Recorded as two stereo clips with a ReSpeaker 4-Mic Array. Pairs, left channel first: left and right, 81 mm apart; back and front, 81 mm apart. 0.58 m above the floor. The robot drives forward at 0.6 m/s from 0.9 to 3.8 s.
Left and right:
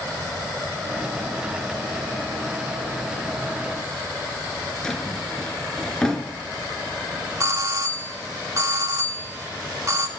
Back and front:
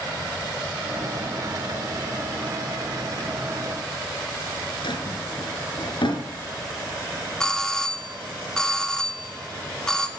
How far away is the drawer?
About 3 m.